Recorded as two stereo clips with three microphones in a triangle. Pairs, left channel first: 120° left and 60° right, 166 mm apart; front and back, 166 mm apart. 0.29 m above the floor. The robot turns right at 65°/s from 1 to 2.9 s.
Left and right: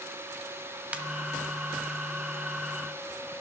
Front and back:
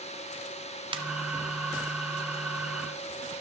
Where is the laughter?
I don't hear laughter.